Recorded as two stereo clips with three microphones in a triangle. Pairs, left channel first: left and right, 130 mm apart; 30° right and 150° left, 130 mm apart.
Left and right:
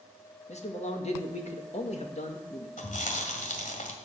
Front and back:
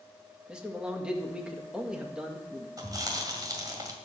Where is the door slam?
No door slam in this recording.